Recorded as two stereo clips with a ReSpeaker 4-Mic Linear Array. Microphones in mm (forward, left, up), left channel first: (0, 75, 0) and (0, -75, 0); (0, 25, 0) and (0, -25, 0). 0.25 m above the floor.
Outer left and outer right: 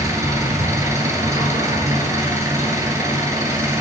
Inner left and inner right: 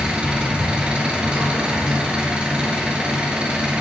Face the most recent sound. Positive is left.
turn(degrees=-20)  # may be behind; listen again after turning